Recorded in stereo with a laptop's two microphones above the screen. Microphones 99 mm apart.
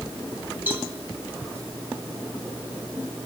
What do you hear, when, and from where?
0.7 s a cowbell: 20° right (ahead or behind), 2.5 m